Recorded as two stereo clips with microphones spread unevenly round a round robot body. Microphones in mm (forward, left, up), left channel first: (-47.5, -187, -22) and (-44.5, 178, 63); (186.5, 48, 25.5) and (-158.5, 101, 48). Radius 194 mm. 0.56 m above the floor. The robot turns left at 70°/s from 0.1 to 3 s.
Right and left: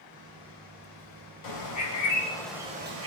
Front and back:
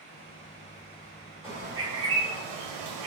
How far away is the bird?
About 2.0 m.